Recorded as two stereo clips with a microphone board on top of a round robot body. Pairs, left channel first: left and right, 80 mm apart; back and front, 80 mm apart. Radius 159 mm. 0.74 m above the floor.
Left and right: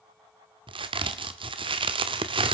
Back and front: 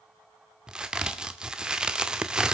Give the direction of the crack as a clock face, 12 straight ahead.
3 o'clock.